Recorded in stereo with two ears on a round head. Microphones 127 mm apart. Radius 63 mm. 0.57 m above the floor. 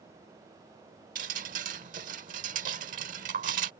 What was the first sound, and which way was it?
Dripping, 60° right (ahead or behind).